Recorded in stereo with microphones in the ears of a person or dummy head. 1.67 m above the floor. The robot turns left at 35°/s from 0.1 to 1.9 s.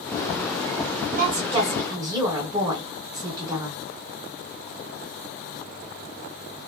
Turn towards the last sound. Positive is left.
turn(degrees=-20)  # may be behind; listen again after turning